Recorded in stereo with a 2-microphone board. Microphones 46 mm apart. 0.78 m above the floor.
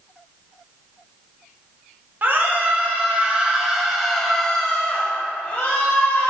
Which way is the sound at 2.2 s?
45° right (ahead or behind).